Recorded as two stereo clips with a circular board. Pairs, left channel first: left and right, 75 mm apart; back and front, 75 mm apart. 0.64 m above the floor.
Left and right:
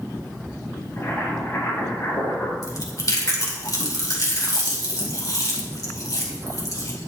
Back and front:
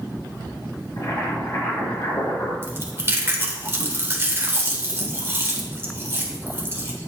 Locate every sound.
1.0 s boiling: 145° left, 4 m
2.6 s chewing: 55° left, 1.6 m